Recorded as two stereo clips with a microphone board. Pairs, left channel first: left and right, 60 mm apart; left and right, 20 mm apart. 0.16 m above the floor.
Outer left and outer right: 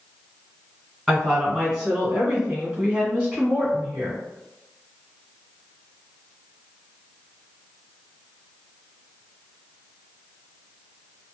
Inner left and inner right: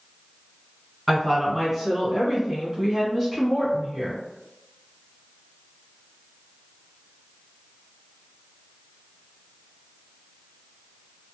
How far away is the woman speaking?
About 1.6 m.